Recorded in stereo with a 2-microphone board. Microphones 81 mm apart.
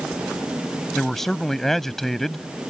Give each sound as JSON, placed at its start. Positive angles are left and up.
{"t": 0.9, "sound": "a man speaking", "side_deg": 5}